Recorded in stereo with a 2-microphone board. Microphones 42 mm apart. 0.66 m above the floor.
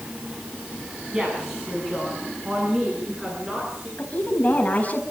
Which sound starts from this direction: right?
A woman speaking, at 1.1 s.